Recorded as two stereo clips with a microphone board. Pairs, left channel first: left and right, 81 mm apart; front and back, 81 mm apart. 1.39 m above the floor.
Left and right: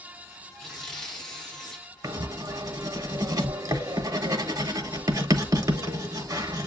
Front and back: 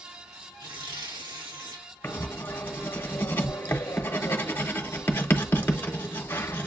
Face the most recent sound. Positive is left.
turn(degrees=-60)